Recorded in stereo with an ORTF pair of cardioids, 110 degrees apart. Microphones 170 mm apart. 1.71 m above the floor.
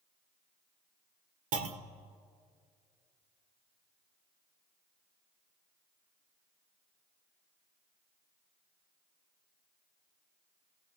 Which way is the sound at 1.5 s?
55° right.